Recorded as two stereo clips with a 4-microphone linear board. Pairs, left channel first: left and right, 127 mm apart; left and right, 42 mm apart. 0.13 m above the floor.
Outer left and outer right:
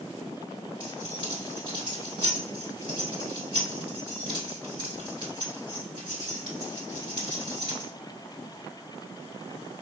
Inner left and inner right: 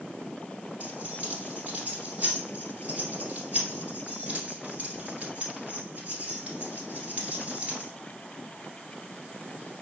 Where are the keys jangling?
35° right (ahead or behind), 1.6 m.